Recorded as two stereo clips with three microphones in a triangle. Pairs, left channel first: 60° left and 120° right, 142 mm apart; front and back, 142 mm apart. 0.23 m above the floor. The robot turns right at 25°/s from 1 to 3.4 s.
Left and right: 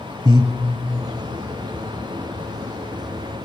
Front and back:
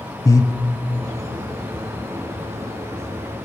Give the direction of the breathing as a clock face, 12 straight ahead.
2 o'clock.